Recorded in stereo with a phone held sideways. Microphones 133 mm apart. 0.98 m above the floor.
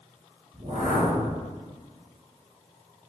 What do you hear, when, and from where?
0.5 s a whoosh: 60° right (ahead or behind), 1.3 m